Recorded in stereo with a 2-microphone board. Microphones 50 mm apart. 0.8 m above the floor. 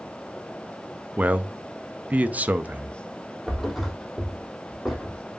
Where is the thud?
Centre (ahead or behind), 3 m.